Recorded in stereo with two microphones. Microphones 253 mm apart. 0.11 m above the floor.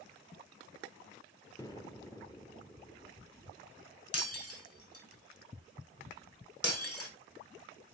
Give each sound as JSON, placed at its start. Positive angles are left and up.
{"t": 1.6, "sound": "an explosion", "side_deg": 15, "distance_m": 1.3}
{"t": 4.1, "sound": "breaking glass", "side_deg": 65, "distance_m": 3.5}